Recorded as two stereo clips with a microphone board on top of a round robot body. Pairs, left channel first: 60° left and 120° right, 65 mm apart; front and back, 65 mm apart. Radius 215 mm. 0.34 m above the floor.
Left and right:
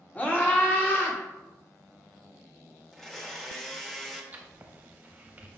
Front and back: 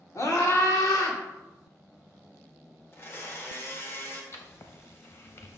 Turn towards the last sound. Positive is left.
turn(degrees=-55)